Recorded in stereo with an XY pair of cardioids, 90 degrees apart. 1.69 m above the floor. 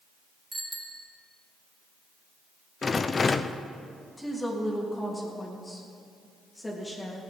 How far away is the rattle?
About 0.7 m.